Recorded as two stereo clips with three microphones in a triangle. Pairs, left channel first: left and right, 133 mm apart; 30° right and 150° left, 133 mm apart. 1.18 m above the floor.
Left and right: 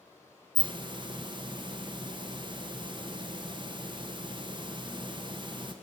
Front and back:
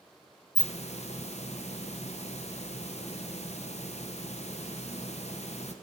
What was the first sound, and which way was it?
A hiss, 45° right.